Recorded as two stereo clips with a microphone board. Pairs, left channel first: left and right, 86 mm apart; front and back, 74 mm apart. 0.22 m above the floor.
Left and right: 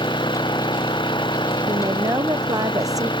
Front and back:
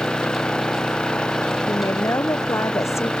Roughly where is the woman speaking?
Ahead right.